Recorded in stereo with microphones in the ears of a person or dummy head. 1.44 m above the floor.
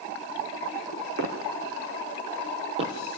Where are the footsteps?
50° right (ahead or behind), 4 m; by 3.0 s 30° right (ahead or behind), 2.5 m.